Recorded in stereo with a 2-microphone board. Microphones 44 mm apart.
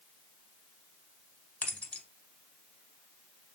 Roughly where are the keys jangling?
Left.